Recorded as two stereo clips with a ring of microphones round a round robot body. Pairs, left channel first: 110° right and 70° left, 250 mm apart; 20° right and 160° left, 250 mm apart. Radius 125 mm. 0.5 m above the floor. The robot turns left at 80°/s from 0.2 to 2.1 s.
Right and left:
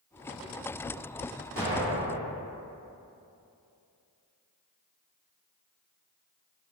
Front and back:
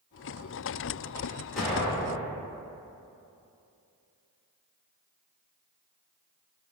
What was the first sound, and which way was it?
An explosion, 70° left.